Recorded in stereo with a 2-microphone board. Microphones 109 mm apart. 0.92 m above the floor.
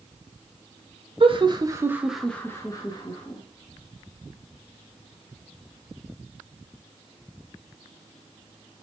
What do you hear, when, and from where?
1.2 s laughter: 50° right (ahead or behind), 0.7 m; by 3.4 s 50° left (ahead or behind), 0.9 m